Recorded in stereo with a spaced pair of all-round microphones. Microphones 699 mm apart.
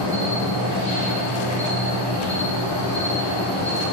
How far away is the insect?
About 3 m.